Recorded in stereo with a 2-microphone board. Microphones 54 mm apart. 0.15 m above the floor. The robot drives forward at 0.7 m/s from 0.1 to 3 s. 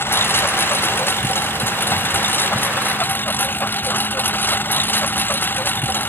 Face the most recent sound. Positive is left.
turn(degrees=40)  # may be behind; listen again after turning